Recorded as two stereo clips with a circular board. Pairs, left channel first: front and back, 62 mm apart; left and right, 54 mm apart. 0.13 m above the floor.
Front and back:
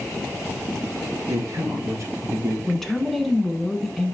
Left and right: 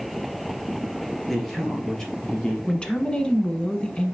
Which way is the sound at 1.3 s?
175° left.